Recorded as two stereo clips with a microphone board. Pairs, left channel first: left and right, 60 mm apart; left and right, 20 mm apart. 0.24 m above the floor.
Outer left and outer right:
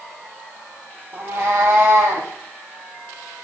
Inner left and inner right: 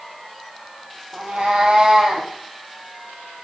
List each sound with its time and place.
1.1 s a cat meowing: 35° right (ahead or behind), 1.5 m; by 2.3 s 40° right (ahead or behind), 2 m